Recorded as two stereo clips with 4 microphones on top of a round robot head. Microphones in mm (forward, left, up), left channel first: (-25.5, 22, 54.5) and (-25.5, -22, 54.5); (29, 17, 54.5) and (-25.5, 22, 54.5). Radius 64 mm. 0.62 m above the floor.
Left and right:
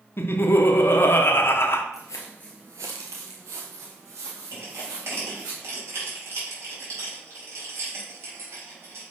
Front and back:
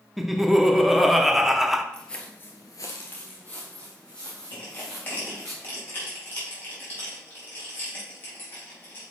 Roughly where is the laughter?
Left.